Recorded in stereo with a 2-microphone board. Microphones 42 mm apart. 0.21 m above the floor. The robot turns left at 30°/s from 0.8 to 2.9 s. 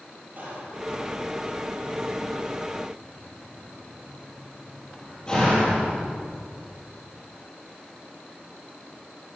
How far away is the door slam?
About 4.5 m.